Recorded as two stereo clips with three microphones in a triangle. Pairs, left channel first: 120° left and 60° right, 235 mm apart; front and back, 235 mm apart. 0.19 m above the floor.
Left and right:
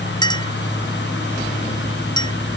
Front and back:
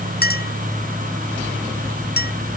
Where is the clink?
50° left.